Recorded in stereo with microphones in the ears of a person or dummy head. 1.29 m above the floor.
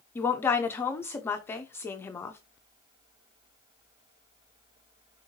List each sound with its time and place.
0.1 s a woman speaking: 15° left (ahead or behind), 0.6 m